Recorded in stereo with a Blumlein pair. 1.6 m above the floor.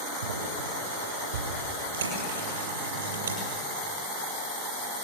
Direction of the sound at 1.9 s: 65° right.